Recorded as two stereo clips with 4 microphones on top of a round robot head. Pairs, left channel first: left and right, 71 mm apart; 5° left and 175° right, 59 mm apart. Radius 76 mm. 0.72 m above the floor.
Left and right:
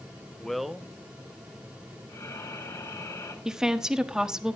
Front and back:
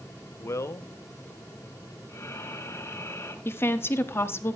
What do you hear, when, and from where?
0.4 s a man speaking: 10° left, 0.6 m; by 2.0 s 20° right, 1.8 m
2.1 s breathing: 50° left, 2.5 m
3.5 s a woman speaking: 10° right, 1.1 m